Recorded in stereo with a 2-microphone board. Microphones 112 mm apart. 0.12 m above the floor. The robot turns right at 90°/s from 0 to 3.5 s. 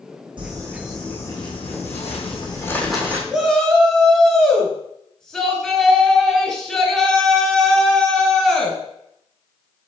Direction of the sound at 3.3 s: 5° right (ahead or behind).